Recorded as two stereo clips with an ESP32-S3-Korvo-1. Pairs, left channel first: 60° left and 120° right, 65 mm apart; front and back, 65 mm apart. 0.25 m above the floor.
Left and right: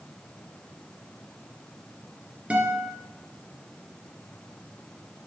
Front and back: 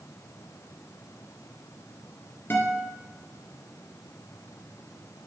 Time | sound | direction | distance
2.5 | a guitar | 50° right | 2 m